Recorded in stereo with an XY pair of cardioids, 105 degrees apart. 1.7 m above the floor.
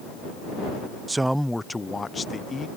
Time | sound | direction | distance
1.1 | a man speaking | 25° right | ?